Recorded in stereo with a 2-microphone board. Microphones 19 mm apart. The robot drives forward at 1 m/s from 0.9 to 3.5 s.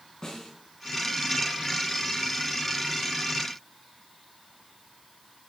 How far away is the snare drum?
About 5 m.